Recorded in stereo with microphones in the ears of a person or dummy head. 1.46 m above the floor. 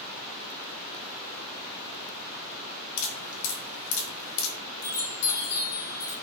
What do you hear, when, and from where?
3.0 s dripping: 70° left (ahead or behind), 1.0 m
4.8 s a chime: 50° left (ahead or behind), 0.6 m